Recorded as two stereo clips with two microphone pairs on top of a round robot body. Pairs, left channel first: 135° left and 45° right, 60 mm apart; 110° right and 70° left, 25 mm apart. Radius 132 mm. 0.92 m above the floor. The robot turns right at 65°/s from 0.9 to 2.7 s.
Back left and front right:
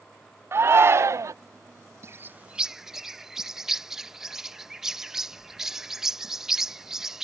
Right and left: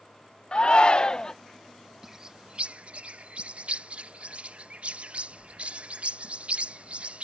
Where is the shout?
80° right; by 1.3 s 50° right.